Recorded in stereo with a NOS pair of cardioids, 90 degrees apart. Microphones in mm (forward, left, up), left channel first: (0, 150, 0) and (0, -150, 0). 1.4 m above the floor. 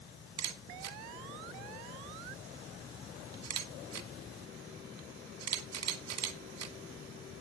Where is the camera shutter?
65° right, 1.5 m.